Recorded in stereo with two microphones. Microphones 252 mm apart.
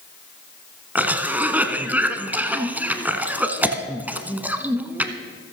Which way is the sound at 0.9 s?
5° right (ahead or behind).